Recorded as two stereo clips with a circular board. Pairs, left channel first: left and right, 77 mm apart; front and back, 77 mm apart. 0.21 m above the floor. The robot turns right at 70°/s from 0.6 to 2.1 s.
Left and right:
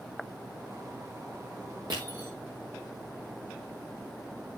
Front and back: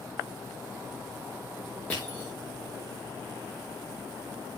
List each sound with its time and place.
1.9 s crushing: 75° right, 4.5 m; by 2.3 s 60° right, 4.5 m